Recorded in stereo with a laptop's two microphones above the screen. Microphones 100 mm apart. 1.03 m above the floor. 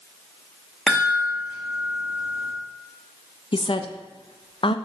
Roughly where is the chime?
Centre.